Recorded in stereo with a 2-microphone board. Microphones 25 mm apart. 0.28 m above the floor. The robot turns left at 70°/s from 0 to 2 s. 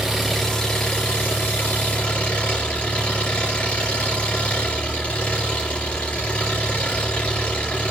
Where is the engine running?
165° right, 4 m; by 7.9 s 55° left, 4 m.